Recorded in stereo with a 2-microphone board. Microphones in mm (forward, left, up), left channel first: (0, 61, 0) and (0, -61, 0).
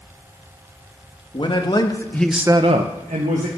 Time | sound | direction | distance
1.3 | a man speaking | 45° left (ahead or behind) | 1.7 m